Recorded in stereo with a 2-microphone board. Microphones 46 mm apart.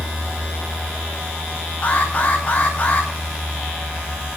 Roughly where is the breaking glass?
No breaking glass in this recording.